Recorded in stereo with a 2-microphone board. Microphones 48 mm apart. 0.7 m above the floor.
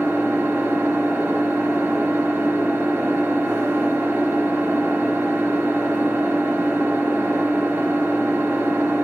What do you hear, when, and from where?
0.0 s an engine running: 60° right (ahead or behind), 1.0 m